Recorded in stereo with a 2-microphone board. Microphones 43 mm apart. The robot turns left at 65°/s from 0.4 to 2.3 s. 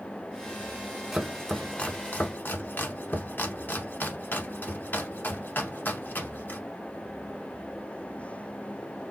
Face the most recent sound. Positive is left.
turn(degrees=55)  # may be behind; listen again after turning